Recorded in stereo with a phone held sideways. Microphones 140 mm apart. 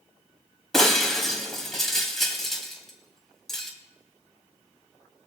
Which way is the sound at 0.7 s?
5° left (ahead or behind).